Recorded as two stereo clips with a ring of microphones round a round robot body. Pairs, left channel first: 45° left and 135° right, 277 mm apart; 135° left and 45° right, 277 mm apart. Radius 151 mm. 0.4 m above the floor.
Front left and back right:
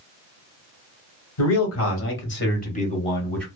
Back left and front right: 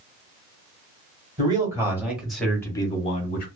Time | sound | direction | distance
1.4 | a man speaking | 30° left | 1.7 m